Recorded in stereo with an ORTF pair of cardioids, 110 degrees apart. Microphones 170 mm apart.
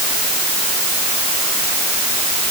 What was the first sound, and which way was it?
Only background noise.